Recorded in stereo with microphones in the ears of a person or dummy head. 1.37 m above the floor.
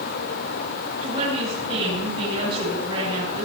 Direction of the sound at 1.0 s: 30° right (ahead or behind).